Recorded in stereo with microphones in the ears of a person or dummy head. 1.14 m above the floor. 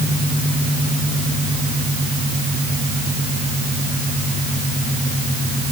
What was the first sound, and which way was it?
Only background noise.